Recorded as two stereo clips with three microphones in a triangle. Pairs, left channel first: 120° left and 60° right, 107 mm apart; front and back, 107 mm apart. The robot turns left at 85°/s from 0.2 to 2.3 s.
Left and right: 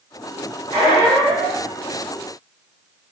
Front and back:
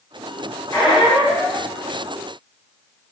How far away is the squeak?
About 0.8 m.